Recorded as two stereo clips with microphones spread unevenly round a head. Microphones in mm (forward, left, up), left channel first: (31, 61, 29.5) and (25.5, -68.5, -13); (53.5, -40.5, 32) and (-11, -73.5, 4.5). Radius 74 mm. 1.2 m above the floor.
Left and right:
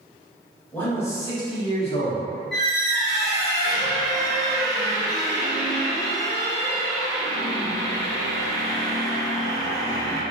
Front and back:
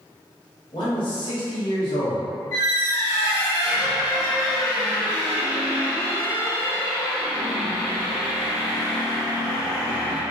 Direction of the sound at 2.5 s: 15° left.